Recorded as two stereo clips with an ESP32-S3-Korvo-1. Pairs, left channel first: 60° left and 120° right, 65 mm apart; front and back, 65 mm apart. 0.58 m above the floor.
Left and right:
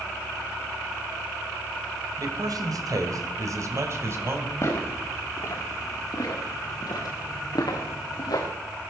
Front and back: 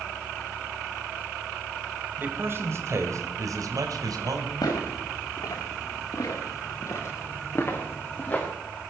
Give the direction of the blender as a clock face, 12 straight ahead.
I don't hear a blender.